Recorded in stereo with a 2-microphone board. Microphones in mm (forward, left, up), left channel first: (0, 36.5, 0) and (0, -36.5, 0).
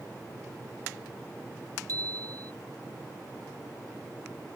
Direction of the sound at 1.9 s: 60° right (ahead or behind).